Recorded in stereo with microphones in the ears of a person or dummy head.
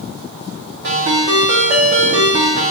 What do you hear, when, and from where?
0.8 s a ringtone: 45° right (ahead or behind), 0.8 m